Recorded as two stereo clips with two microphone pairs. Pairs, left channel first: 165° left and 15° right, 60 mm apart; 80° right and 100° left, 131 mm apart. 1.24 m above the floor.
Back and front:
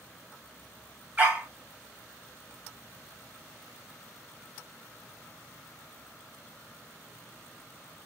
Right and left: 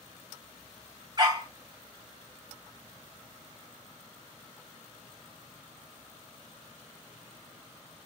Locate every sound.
1.2 s a dog barking: 50° left, 1.3 m